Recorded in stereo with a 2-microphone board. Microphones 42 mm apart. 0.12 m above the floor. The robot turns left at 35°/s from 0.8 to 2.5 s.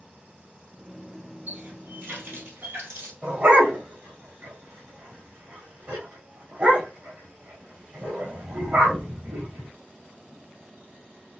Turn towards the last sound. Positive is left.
turn(degrees=-35)  # may be behind; listen again after turning